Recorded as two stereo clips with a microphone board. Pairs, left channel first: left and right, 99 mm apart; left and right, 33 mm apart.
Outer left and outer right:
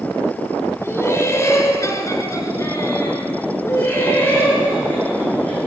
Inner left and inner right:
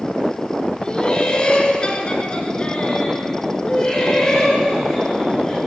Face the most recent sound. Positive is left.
turn(degrees=15)  # may be behind; listen again after turning